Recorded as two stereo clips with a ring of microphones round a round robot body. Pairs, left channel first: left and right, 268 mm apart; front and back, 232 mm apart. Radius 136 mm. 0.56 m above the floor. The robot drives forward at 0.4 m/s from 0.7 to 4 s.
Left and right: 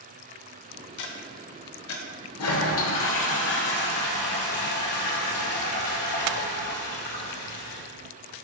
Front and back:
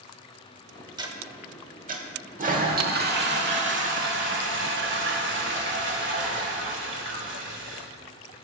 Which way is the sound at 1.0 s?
105° left.